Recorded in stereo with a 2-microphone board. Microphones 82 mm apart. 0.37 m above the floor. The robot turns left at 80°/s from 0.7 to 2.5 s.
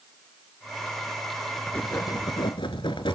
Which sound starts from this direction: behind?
Writing, at 1.7 s.